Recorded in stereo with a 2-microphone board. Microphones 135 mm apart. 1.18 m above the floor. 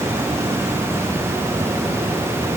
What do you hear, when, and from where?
Only background noise.